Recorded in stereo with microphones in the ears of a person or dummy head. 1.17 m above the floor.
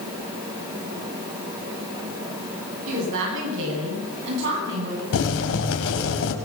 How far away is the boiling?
About 4 m.